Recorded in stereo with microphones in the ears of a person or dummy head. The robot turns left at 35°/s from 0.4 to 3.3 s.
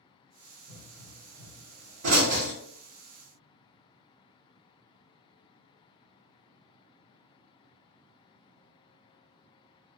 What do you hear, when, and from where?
0.7 s a pop: 60° right (ahead or behind), 1.5 m; by 2.5 s 55° right (ahead or behind), 1.5 m